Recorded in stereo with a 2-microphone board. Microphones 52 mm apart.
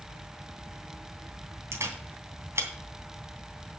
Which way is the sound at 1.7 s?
60° right (ahead or behind).